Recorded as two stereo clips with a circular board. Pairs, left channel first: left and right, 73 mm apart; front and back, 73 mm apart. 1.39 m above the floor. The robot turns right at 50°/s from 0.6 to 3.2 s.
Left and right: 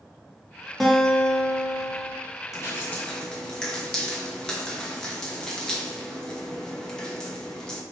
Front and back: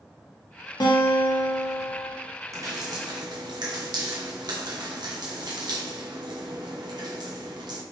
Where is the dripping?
135° left, 0.9 m; by 7.8 s 170° left, 0.9 m.